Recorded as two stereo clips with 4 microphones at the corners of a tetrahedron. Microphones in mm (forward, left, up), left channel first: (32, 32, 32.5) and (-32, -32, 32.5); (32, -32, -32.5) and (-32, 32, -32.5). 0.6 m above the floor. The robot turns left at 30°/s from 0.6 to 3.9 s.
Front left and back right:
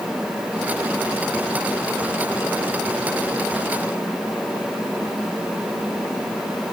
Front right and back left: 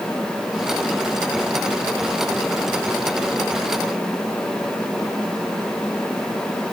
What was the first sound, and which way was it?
Only background noise.